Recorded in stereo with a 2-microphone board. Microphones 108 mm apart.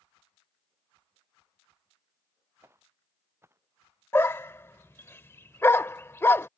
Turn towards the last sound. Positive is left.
turn(degrees=20)  # may be behind; listen again after turning